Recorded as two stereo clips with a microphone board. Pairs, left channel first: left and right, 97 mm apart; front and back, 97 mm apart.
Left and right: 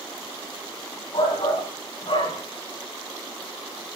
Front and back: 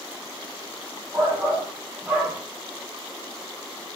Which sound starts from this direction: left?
A shout, at 1.1 s.